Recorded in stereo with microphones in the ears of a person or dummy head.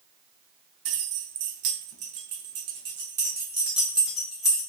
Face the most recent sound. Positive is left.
turn(degrees=5)  # may be behind; listen again after turning